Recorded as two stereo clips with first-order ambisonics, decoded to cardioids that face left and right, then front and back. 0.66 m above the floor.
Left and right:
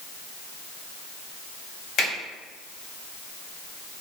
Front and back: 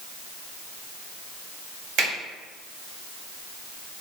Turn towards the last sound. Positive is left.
turn(degrees=150)